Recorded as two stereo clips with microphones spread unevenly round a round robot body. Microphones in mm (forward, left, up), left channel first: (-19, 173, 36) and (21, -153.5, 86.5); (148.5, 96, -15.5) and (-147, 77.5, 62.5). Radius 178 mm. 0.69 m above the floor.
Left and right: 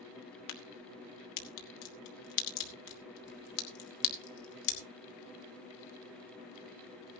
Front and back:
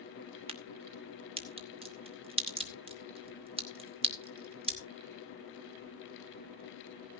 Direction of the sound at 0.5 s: 105° left.